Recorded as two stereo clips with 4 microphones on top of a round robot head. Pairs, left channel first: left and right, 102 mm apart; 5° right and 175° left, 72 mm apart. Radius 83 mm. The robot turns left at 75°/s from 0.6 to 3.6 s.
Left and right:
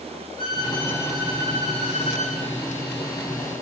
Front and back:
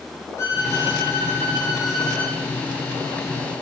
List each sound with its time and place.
0.4 s a violin: 40° left, 7.5 m; by 2.4 s 90° right, 7.5 m